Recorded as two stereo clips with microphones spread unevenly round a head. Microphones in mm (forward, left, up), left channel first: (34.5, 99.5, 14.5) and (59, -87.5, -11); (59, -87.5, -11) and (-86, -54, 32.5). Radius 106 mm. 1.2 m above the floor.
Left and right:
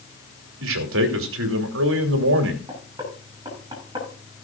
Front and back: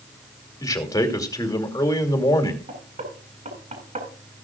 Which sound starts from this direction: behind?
Knocking, at 2.7 s.